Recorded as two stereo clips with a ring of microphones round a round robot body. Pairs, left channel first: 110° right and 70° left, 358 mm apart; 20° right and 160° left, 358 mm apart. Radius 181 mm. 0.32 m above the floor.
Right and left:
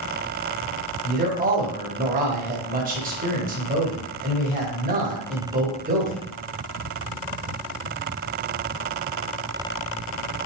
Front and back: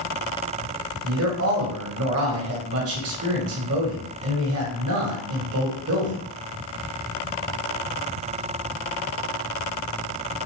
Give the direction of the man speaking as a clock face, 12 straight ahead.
8 o'clock.